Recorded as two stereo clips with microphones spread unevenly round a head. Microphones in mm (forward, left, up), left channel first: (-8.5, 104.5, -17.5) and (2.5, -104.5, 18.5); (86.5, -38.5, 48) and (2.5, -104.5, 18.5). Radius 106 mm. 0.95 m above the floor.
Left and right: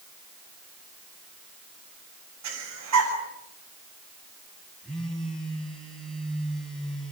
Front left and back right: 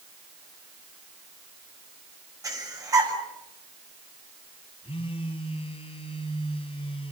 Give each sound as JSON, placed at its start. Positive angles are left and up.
{"t": 2.4, "sound": "breathing", "azimuth_deg": -85, "distance_m": 8.5}
{"t": 4.8, "sound": "a phone buzzing", "azimuth_deg": 5, "distance_m": 6.0}